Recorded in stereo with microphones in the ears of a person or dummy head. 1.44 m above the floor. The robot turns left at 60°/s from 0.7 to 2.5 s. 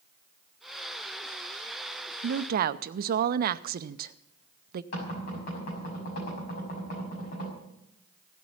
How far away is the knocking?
About 6 m.